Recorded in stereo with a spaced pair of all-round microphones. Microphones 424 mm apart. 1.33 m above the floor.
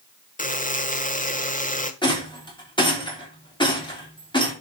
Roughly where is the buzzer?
Centre.